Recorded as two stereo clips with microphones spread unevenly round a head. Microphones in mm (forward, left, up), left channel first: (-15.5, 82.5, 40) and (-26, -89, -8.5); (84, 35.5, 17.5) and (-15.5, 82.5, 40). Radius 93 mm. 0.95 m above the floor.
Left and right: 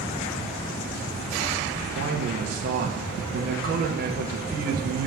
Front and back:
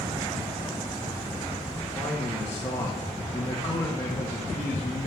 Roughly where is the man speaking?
Right.